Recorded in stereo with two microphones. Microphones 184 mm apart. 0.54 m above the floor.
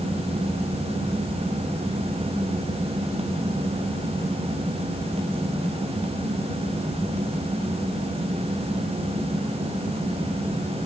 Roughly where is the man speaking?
I don't hear a man speaking.